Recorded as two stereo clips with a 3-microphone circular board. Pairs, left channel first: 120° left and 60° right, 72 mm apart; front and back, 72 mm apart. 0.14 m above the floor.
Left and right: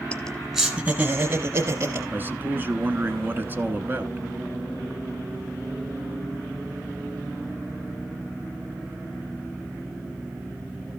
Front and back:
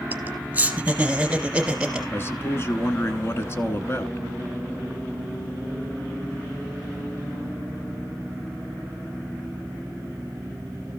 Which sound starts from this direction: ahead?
A man speaking, at 2.1 s.